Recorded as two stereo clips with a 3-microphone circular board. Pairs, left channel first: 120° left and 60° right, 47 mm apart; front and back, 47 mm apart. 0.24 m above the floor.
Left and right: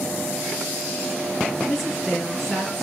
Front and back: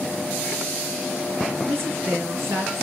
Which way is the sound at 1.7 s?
165° right.